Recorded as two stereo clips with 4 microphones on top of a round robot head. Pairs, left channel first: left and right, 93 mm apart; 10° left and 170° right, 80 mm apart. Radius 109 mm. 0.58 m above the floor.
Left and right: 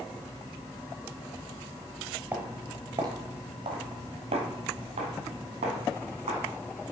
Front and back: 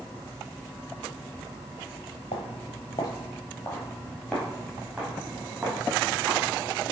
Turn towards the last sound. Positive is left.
turn(degrees=-100)